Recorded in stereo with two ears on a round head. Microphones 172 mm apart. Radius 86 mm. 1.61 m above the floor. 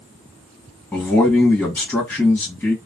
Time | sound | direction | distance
0.9 | a man speaking | 10° left (ahead or behind) | 1.5 m